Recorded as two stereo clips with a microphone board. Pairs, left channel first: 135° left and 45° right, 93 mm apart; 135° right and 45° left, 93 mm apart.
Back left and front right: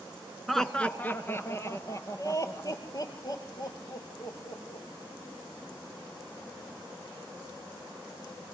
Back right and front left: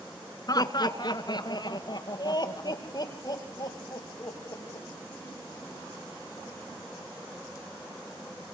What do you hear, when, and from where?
0.5 s laughter: 135° right, 1.3 m; by 4.8 s 175° left, 6 m